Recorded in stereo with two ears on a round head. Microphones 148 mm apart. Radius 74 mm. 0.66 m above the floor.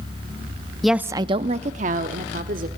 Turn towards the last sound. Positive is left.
turn(degrees=-50)  # may be behind; listen again after turning